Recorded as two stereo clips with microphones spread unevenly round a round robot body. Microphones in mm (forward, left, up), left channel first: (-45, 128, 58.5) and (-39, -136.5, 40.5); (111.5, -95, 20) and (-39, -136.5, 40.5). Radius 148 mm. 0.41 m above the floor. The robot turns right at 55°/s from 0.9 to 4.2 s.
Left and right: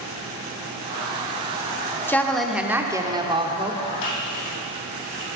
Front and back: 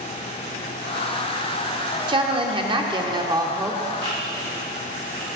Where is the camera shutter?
90° left, 4 m; by 5.3 s 100° left, 4 m.